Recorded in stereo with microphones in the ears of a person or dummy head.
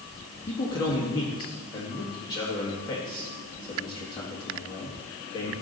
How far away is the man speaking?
About 1.7 m.